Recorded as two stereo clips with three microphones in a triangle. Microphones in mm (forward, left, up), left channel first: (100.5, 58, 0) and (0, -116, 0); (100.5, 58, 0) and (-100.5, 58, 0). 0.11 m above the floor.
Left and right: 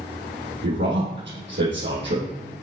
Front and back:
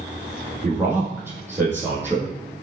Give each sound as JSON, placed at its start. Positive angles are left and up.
{"t": 0.6, "sound": "a man speaking", "azimuth_deg": -105, "distance_m": 3.5}